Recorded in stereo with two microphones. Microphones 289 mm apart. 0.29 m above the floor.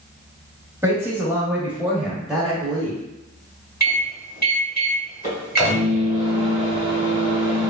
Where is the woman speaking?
10° right (ahead or behind), 1.2 m; by 3.0 s 5° left (ahead or behind), 1.0 m.